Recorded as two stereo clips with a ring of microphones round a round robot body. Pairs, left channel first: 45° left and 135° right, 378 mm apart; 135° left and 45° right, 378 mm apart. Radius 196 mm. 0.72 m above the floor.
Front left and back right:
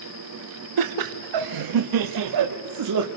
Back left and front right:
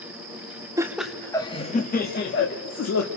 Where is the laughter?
125° right, 1.0 m; by 3.1 s 175° right, 1.7 m.